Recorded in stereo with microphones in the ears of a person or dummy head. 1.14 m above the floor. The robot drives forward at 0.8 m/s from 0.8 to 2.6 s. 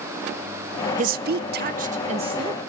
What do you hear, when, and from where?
1.0 s a woman speaking: 40° right (ahead or behind), 0.6 m; by 2.6 s 20° right (ahead or behind), 1.2 m